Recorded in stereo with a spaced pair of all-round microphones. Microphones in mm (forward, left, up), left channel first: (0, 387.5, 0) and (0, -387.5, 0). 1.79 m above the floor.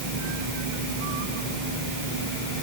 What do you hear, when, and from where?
Only background noise.